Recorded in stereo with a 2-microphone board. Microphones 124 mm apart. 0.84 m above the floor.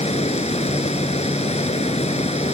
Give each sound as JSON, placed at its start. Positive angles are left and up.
{"t": 0.0, "sound": "running water", "side_deg": 60}